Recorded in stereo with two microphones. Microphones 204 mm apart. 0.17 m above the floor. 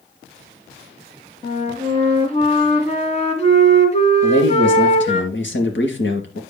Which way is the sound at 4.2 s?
60° left (ahead or behind).